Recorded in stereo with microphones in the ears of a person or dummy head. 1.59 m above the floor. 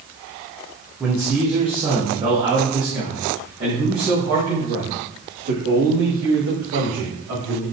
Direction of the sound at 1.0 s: 10° right (ahead or behind).